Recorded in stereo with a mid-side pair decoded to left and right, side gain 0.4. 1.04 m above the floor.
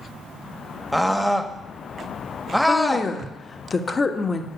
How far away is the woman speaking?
About 1.4 m.